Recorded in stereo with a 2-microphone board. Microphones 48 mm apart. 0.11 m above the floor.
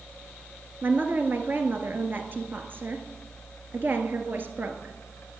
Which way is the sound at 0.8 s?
45° right (ahead or behind).